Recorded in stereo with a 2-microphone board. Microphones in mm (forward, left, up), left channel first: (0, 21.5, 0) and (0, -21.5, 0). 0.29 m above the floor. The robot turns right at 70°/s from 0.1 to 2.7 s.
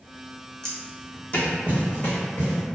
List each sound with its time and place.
0.6 s footsteps: 15° left (ahead or behind), 0.9 m; by 2.6 s 70° left (ahead or behind), 1.4 m